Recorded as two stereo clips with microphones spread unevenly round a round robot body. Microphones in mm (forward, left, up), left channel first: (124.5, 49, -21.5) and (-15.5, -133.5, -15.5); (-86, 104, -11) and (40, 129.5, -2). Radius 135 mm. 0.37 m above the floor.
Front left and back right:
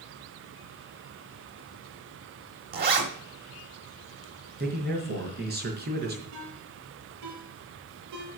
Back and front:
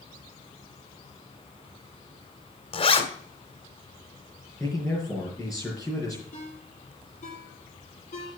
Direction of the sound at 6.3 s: 130° right.